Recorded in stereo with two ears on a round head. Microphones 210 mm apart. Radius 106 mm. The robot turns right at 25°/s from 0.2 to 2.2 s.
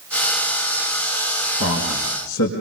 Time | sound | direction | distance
1.6 | a man speaking | 60° left (ahead or behind) | 5.5 m